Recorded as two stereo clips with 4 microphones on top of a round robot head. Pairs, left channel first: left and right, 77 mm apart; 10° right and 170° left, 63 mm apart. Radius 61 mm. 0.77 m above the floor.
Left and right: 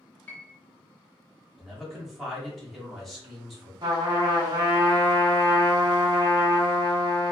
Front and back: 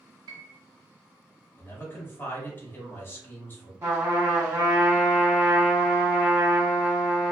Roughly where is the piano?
Behind.